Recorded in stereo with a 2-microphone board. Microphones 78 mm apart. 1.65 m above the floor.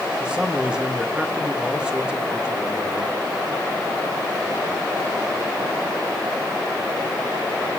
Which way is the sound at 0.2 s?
10° right (ahead or behind).